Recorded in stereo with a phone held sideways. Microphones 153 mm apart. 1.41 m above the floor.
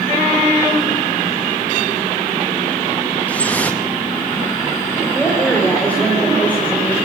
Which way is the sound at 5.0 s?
10° left (ahead or behind).